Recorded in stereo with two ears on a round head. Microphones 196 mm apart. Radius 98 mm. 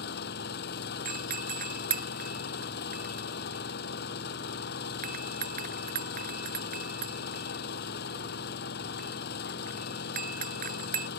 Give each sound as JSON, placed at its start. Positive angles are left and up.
{"t": 0.0, "sound": "an engine running", "side_deg": 50}
{"t": 1.1, "sound": "a doorbell", "side_deg": -40}